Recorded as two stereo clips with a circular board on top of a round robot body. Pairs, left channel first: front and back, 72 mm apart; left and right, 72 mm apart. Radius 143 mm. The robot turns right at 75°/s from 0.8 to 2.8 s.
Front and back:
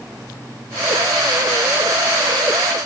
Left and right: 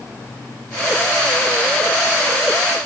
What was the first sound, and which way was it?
Only background noise.